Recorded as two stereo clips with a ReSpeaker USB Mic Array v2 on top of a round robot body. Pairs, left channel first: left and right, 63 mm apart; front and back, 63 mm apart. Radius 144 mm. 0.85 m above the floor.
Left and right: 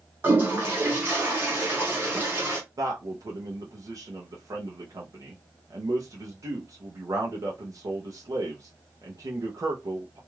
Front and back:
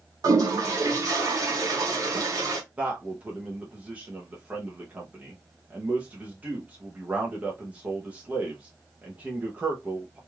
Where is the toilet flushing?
150° right, 0.5 m.